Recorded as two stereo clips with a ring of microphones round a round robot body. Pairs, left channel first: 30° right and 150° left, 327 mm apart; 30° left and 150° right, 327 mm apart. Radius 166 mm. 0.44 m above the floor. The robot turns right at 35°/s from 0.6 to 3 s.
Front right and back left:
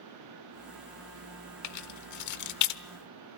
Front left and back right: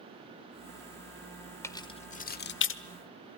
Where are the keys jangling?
50° right, 1.2 m; by 2.8 s 10° right, 1.2 m.